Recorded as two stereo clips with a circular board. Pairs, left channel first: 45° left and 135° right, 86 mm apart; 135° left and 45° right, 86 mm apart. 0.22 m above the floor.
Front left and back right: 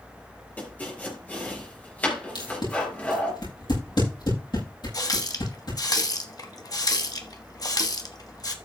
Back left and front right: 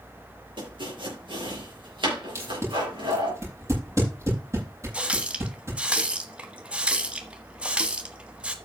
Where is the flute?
No flute in this recording.